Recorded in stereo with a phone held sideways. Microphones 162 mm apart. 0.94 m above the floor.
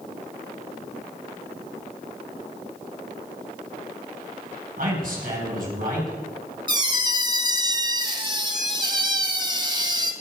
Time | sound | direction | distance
4.8 | a man speaking | 65° right (ahead or behind) | 5 m
6.7 | a squeak | 25° right (ahead or behind) | 1.0 m